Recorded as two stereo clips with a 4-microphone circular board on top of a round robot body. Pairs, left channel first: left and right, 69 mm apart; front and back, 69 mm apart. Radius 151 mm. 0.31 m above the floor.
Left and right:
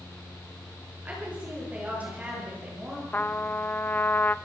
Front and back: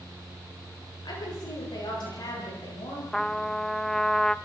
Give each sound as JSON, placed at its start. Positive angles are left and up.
{"t": 1.1, "sound": "a woman speaking", "azimuth_deg": -20, "distance_m": 10.0}
{"t": 3.1, "sound": "a trumpet", "azimuth_deg": 80, "distance_m": 1.0}